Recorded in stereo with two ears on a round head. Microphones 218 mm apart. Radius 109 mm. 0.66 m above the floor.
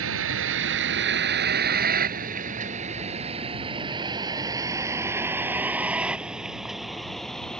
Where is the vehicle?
55° right (ahead or behind); by 7.6 s 5° left (ahead or behind).